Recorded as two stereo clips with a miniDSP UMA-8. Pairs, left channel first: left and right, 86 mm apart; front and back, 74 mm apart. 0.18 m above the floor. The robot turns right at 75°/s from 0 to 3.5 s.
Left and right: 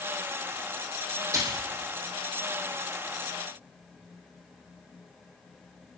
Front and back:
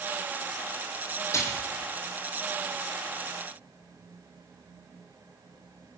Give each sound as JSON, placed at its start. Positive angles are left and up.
{"t": 1.3, "sound": "a splash", "azimuth_deg": -45, "distance_m": 5.5}